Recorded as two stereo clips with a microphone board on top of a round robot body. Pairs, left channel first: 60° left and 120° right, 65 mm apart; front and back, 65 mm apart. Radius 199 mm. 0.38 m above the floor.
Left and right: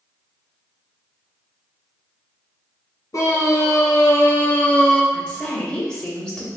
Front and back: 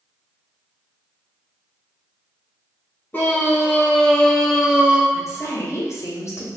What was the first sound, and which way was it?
A scream, 55° left.